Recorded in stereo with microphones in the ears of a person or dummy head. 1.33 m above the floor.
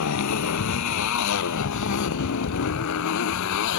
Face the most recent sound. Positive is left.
turn(degrees=70)  # may be behind; listen again after turning